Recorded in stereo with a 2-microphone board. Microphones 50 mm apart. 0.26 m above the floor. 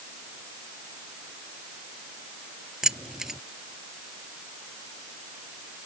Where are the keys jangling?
10° right (ahead or behind).